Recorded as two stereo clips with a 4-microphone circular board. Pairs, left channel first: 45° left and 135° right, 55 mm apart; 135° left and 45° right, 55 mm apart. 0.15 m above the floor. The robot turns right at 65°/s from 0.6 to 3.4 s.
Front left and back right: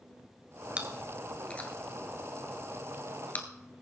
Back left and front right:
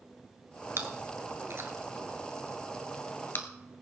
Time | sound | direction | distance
0.8 | chewing | 70° right | 1.5 m